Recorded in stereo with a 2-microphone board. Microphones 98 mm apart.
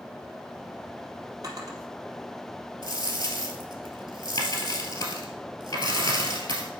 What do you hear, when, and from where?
1.4 s a drawer: 40° right (ahead or behind), 2 m
2.8 s a dropped coin: 45° left (ahead or behind), 1.6 m